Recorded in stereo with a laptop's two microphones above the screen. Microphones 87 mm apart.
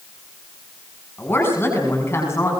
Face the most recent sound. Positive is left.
turn(degrees=30)  # may be behind; listen again after turning